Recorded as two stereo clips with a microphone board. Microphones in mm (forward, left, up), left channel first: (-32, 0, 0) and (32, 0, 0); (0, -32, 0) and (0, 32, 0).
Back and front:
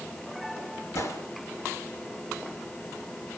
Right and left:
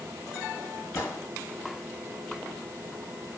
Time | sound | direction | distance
0.9 | a gunshot | 135° right | 3 m